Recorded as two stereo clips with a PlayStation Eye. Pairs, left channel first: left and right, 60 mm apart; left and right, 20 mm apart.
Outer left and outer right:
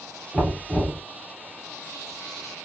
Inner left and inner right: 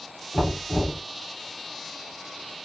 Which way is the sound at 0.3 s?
10° left (ahead or behind).